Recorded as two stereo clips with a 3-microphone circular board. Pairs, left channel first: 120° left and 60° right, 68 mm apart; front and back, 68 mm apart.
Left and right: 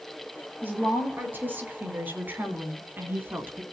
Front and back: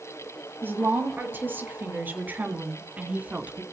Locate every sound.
0.6 s a woman speaking: 120° right, 6 m; by 3.6 s 110° right, 2.5 m